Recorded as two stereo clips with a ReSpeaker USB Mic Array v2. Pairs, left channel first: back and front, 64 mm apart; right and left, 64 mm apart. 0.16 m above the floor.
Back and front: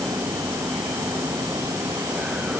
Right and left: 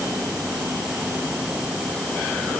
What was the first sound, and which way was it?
Only background noise.